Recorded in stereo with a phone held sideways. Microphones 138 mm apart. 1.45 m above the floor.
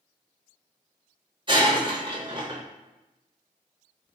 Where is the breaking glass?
35° right (ahead or behind), 0.7 m.